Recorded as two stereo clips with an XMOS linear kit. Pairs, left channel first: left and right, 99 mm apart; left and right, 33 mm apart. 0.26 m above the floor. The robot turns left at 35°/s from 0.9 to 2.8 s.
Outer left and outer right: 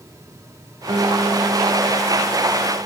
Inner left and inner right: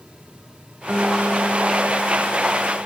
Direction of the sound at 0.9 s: 55° right.